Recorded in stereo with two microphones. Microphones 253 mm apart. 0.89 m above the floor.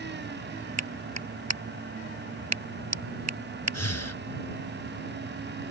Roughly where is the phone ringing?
No phone ringing in this recording.